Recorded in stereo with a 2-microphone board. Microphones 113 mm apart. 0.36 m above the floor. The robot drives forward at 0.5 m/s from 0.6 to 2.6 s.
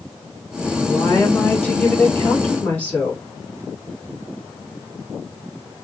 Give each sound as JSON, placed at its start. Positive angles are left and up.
{"t": 0.9, "sound": "a woman speaking", "side_deg": 20, "distance_m": 1.3}